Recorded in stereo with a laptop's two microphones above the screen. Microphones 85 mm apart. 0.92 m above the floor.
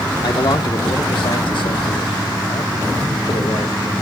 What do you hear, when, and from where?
0.2 s a man speaking: 60° left (ahead or behind), 2 m; by 3.9 s 55° left (ahead or behind), 2.5 m